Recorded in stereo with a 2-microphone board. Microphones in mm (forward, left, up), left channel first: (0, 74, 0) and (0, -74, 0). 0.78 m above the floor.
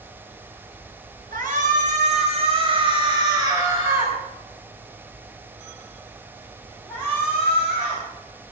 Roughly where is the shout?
Right.